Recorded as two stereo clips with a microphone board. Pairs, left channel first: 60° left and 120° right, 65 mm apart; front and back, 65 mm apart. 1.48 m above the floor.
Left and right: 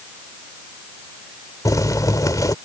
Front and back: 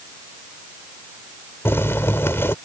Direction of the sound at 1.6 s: 50° left.